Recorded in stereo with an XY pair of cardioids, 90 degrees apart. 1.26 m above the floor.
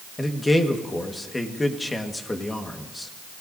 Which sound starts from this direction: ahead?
A man speaking, at 0.2 s.